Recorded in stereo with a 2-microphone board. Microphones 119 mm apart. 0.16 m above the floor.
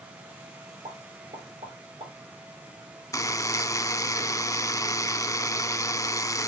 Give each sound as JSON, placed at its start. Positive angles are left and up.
{"t": 0.8, "sound": "a pop", "side_deg": -65, "distance_m": 5.5}
{"t": 3.1, "sound": "a buzzer", "side_deg": 30, "distance_m": 0.5}